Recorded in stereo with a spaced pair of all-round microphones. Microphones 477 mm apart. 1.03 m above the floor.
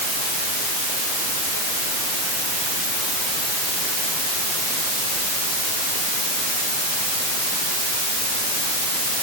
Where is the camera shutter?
I don't hear a camera shutter.